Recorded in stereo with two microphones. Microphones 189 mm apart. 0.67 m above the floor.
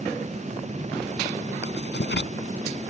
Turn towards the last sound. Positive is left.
turn(degrees=65)  # may be behind; listen again after turning